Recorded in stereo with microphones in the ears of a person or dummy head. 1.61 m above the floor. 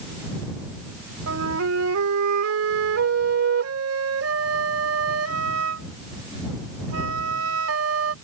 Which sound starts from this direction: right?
A flute, at 1.3 s.